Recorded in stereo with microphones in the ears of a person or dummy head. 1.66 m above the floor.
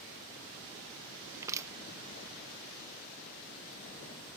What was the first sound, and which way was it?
Crushing, 15° right (ahead or behind).